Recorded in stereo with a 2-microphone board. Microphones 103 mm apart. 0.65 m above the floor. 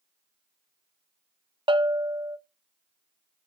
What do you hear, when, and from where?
1.7 s a bell: 55° right (ahead or behind), 0.5 m